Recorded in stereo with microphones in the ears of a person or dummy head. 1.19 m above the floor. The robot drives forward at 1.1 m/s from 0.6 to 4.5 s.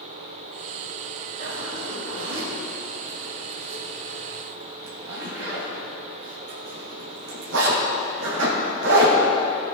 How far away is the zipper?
About 5.5 m.